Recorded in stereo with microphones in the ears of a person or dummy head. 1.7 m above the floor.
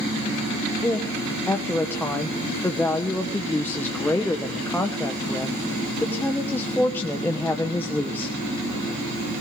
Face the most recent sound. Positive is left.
turn(degrees=5)  # may be behind; listen again after turning